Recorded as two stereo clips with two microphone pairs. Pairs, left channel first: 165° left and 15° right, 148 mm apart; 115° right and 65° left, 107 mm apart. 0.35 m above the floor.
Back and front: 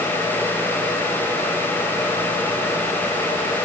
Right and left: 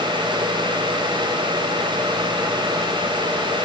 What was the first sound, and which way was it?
Only background noise.